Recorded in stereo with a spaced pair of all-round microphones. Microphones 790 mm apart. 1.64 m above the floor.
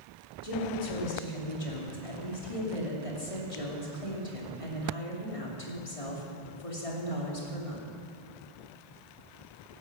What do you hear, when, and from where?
0.4 s a woman speaking: 40° left (ahead or behind), 3.5 m